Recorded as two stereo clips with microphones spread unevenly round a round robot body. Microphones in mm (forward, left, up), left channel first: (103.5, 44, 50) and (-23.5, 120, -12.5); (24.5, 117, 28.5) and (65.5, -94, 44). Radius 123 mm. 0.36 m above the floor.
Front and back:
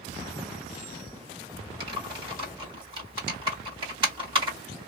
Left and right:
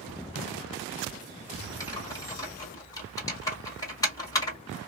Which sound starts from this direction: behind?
Typing on a keyboard, at 1.8 s.